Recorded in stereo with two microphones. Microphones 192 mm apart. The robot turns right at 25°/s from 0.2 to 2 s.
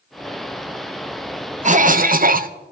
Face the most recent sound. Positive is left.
turn(degrees=-50)  # may be behind; listen again after turning